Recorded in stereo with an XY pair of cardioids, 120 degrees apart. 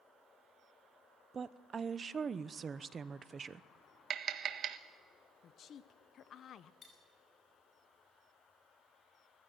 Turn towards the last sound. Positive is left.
turn(degrees=45)